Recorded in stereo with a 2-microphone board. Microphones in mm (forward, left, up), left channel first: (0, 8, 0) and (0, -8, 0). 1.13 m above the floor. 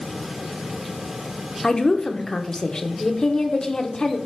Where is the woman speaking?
35° left (ahead or behind), 0.9 m.